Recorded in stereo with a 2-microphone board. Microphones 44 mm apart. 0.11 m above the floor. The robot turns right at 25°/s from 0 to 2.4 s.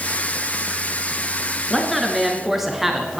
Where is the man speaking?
5° left (ahead or behind), 1.6 m; by 3.2 s 5° right (ahead or behind), 1.6 m.